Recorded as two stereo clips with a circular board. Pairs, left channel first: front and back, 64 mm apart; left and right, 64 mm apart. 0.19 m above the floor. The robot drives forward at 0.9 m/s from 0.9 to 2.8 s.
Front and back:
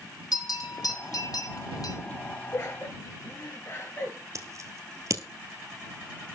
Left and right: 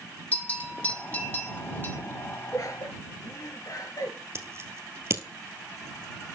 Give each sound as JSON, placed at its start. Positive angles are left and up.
{"t": 0.3, "sound": "a bell", "azimuth_deg": 20, "distance_m": 3.5}
{"t": 2.5, "sound": "laughter", "azimuth_deg": 55, "distance_m": 3.5}
{"t": 4.3, "sound": "scissors", "azimuth_deg": -140, "distance_m": 1.7}